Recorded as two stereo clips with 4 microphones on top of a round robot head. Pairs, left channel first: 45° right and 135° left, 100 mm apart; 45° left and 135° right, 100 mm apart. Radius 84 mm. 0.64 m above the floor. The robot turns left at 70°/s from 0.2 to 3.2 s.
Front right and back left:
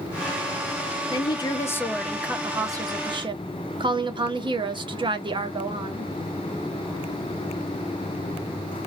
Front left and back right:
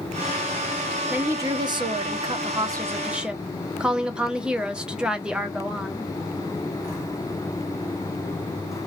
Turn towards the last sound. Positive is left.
turn(degrees=150)